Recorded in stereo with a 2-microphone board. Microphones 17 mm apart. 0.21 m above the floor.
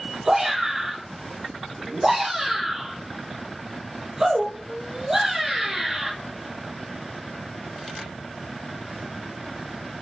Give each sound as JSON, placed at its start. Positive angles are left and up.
{"t": 0.2, "sound": "a shout", "side_deg": -30, "distance_m": 3.0}